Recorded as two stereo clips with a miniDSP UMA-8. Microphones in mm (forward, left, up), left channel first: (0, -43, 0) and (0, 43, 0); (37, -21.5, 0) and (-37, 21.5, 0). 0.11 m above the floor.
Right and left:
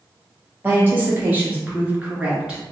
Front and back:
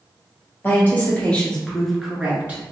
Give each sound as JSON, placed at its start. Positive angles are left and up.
{"t": 0.6, "sound": "a woman speaking", "azimuth_deg": 30, "distance_m": 1.7}